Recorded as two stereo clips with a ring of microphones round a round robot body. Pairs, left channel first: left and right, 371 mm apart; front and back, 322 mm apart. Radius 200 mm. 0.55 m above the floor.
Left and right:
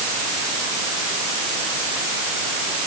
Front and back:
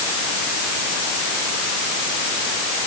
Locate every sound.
Only background noise.